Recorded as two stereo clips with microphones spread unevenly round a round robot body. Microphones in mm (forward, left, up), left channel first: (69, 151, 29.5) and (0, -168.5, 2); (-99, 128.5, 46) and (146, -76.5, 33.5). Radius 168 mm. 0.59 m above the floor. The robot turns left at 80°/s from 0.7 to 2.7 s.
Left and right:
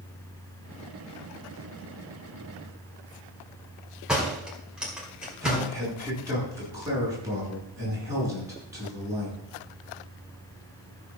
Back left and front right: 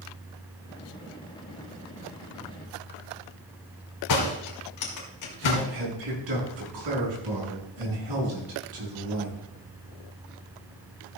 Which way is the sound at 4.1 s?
170° left.